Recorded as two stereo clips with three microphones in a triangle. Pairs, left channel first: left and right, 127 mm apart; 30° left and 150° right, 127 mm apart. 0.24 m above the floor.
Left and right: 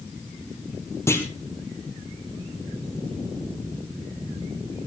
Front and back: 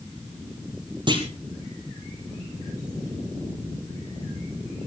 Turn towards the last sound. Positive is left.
turn(degrees=160)